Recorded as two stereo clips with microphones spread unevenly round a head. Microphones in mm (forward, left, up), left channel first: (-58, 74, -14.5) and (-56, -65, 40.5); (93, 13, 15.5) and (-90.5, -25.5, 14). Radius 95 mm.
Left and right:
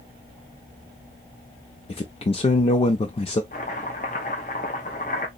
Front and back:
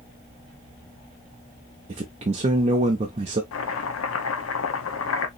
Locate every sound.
1.9 s a man speaking: 135° left, 0.6 m
3.5 s chopping: 30° left, 0.8 m